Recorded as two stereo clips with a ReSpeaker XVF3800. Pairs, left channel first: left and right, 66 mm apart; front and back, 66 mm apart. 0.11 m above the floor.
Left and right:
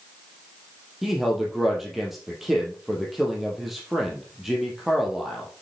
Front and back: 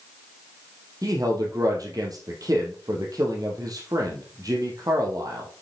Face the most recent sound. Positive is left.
turn(degrees=-175)